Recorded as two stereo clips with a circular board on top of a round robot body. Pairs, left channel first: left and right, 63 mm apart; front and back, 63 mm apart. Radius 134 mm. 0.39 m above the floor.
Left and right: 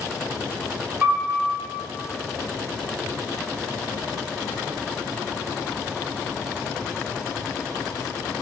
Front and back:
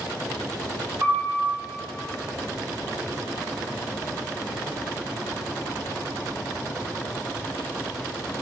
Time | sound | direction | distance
1.0 | a piano | 150° right | 2.0 m